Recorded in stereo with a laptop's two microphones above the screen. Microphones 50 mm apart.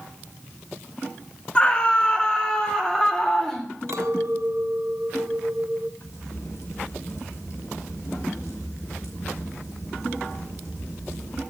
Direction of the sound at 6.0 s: 75° left (ahead or behind).